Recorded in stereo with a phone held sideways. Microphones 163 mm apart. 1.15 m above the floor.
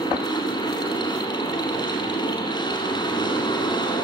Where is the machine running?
25° left (ahead or behind), 5 m.